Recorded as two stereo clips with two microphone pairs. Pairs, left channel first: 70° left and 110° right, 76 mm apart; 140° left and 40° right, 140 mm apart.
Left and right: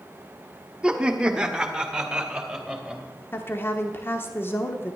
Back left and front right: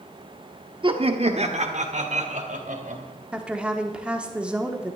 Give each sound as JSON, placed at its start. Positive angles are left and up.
{"t": 0.8, "sound": "laughter", "azimuth_deg": -40, "distance_m": 1.1}
{"t": 3.3, "sound": "a woman speaking", "azimuth_deg": 35, "distance_m": 1.0}